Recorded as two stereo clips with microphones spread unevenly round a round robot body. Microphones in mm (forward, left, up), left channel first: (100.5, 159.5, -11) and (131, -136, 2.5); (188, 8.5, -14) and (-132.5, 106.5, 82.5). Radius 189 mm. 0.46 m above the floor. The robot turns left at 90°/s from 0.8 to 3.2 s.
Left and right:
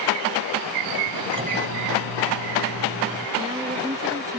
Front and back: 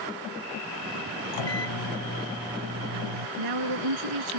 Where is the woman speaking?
165° right.